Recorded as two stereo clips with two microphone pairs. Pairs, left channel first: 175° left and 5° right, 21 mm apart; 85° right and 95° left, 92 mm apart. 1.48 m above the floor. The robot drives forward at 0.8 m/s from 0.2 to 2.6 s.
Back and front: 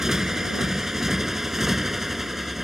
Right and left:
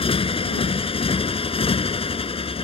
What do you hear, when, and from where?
0.0 s a motorcycle: 70° right; by 2.7 s 80° right